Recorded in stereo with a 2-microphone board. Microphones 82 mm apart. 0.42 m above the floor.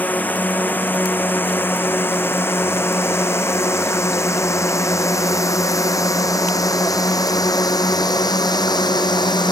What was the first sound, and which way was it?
A drone, 20° left (ahead or behind).